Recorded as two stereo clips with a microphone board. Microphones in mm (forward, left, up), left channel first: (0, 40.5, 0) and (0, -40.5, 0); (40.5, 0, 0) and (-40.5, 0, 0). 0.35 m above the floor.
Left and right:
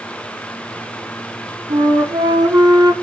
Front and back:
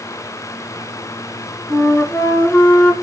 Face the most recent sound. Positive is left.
turn(degrees=-65)